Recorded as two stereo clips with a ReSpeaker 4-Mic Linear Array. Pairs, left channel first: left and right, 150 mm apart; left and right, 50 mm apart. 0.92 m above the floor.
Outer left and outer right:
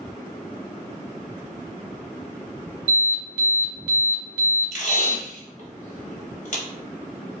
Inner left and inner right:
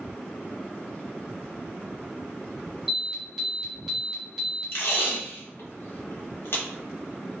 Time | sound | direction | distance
2.9 | an alarm | 15° right (ahead or behind) | 1.6 m
4.7 | tape being pulled | 55° left (ahead or behind) | 1.0 m